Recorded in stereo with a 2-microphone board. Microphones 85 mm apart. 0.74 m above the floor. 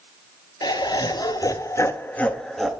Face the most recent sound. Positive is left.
turn(degrees=0)  # may be behind; listen again after turning